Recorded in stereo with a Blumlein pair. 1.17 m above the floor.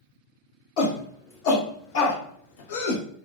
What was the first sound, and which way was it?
A shout, 50° left.